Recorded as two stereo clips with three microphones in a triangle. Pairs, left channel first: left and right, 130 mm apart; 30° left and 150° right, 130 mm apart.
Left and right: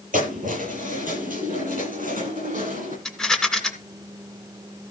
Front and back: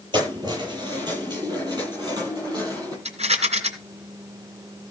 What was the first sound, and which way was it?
Keys jangling, 95° right.